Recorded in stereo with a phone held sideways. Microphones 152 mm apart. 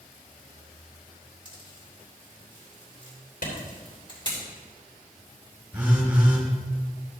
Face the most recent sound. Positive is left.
turn(degrees=-15)  # may be behind; listen again after turning